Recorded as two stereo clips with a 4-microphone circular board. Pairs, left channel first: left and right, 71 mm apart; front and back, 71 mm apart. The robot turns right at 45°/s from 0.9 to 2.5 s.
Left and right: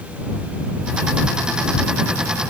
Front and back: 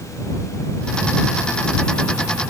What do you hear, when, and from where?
Only background noise.